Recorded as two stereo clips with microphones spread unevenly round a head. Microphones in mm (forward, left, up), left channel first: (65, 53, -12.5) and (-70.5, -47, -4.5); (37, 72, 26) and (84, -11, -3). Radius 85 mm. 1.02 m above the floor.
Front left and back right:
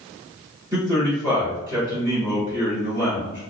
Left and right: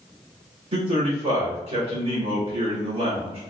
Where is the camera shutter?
No camera shutter in this recording.